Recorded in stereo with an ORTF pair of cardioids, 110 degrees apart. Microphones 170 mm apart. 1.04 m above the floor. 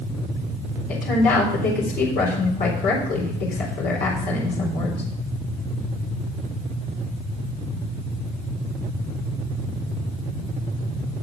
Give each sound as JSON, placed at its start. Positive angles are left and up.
{"t": 0.9, "sound": "a woman speaking", "azimuth_deg": 60, "distance_m": 3.5}